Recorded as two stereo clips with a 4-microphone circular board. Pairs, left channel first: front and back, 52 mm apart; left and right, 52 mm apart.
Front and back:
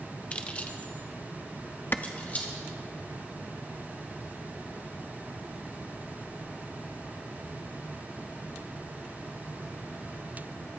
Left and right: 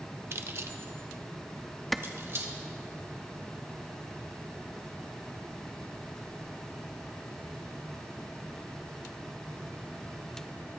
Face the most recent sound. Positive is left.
turn(degrees=5)